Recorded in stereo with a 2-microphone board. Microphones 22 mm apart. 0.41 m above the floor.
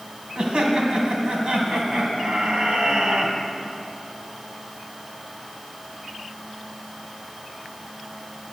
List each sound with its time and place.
0.3 s laughter: 55° right (ahead or behind), 3.5 m